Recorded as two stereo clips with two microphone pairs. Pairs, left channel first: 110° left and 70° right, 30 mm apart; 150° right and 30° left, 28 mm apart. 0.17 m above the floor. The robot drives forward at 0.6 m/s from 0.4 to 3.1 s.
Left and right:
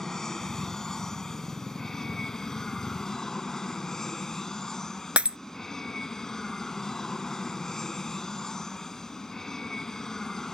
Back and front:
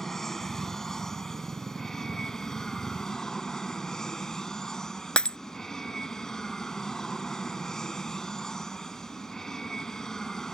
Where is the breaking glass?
105° right.